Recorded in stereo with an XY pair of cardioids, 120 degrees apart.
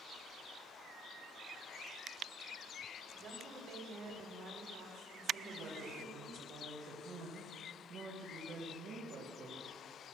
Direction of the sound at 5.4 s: 50° right.